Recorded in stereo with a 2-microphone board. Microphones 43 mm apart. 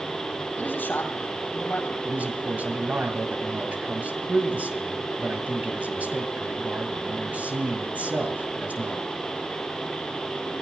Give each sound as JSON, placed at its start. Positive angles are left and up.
{"t": 0.6, "sound": "a man speaking", "side_deg": 50, "distance_m": 3.0}
{"t": 2.0, "sound": "a man speaking", "side_deg": -40, "distance_m": 2.5}